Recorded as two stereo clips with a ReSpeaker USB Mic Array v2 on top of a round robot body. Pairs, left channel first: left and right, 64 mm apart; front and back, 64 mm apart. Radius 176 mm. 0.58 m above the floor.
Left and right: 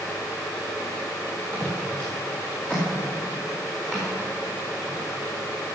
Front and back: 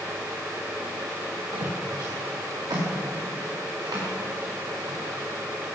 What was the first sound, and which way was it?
Footsteps, 160° left.